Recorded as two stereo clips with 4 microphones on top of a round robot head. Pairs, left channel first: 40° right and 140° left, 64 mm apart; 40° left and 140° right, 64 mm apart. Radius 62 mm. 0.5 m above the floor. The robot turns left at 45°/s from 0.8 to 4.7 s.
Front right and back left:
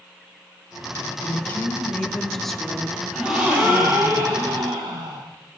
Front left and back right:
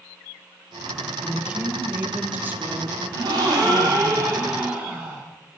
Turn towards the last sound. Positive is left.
turn(degrees=145)